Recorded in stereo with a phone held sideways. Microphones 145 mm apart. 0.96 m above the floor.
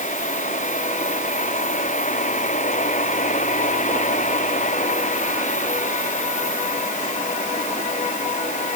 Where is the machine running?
60° left (ahead or behind).